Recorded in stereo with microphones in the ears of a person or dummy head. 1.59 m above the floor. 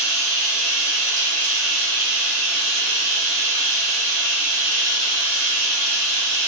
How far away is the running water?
About 0.7 m.